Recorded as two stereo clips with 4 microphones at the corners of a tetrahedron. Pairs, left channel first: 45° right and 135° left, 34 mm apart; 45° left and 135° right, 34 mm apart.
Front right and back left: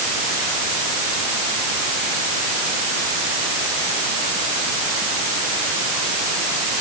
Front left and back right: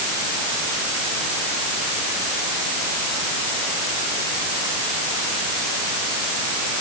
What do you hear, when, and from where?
Only background noise.